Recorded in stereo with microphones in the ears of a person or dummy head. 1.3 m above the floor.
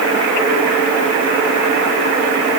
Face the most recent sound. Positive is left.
No sound to turn to.